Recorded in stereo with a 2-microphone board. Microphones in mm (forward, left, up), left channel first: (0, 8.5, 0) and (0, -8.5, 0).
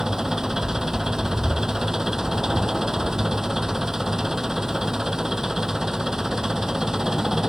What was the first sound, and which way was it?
An engine running, 35° right (ahead or behind).